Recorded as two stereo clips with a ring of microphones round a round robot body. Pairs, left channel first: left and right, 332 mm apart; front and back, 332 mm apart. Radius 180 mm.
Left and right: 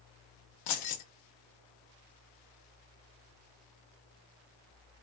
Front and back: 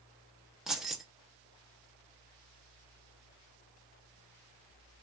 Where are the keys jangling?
90° left, 0.7 m.